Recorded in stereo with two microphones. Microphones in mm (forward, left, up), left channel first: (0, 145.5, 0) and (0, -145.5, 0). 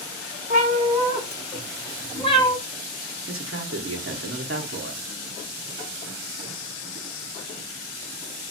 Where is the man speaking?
45° right (ahead or behind), 0.6 m.